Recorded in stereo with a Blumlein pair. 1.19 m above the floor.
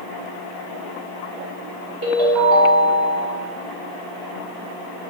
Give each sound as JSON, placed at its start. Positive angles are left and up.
{"t": 2.0, "sound": "a ringtone", "azimuth_deg": -50, "distance_m": 1.4}